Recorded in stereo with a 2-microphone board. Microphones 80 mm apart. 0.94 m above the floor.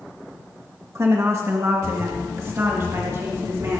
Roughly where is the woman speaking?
Right.